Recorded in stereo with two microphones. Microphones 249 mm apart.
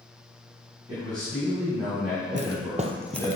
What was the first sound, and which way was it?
A man speaking, 15° right (ahead or behind).